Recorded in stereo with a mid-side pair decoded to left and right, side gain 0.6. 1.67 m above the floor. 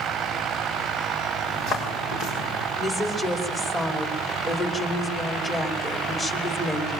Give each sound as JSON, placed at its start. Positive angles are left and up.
{"t": 1.4, "sound": "footsteps", "azimuth_deg": 65, "distance_m": 8.5}
{"t": 2.8, "sound": "a woman speaking", "azimuth_deg": 20, "distance_m": 5.5}